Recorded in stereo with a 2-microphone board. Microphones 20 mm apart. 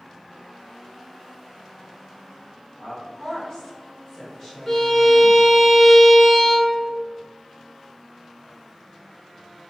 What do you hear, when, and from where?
2.8 s a woman speaking: 45° left (ahead or behind), 1.5 m; by 5.4 s 20° right (ahead or behind), 1.0 m
4.7 s a violin: 15° left (ahead or behind), 0.7 m